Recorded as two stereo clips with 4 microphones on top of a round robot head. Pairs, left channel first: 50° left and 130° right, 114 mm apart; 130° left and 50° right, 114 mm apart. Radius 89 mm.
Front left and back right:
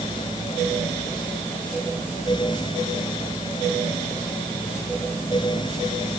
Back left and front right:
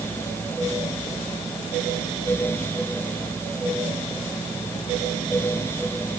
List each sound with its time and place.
Only background noise.